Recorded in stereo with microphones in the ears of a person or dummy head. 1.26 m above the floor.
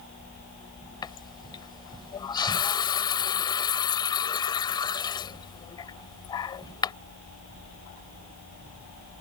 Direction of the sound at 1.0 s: 25° left (ahead or behind).